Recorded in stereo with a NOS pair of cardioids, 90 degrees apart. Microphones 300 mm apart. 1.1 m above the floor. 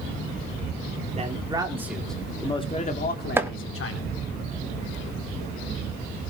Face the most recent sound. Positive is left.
turn(degrees=-10)